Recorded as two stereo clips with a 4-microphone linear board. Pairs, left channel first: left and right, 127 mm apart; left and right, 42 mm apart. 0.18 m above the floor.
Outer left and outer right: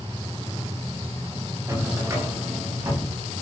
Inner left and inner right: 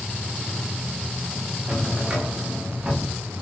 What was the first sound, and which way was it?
A drawer, 25° right (ahead or behind).